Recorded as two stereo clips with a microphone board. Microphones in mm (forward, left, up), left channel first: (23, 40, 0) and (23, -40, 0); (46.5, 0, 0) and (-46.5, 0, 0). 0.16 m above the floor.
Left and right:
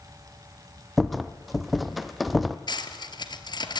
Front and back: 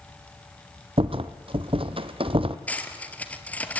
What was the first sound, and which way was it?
A rattle, straight behind.